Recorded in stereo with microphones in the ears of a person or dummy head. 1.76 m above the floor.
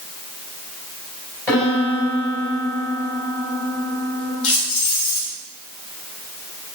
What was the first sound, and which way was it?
A piano, 10° left (ahead or behind).